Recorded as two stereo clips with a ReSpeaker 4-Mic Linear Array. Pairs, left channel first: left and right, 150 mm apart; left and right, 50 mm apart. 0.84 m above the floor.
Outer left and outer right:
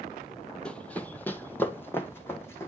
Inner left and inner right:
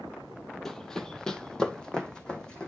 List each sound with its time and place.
0.7 s running footsteps: 5° left (ahead or behind), 0.9 m; by 2.7 s 15° left (ahead or behind), 2.0 m